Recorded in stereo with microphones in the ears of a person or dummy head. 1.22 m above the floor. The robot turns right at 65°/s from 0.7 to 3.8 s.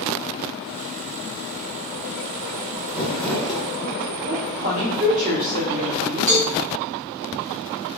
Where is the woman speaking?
35° right (ahead or behind), 1.1 m.